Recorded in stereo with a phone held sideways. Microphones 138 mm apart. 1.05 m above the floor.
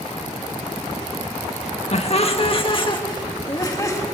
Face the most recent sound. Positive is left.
turn(degrees=25)  # may be behind; listen again after turning